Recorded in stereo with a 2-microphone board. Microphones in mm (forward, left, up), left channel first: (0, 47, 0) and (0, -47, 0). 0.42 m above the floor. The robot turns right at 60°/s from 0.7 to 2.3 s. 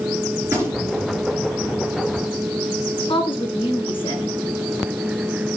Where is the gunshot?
30° right (ahead or behind), 3.5 m; by 1.1 s 50° right (ahead or behind), 3.5 m.